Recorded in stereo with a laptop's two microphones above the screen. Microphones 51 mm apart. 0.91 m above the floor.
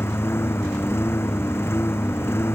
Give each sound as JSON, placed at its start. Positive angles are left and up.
{"t": 0.0, "sound": "a lawn mower", "side_deg": 55}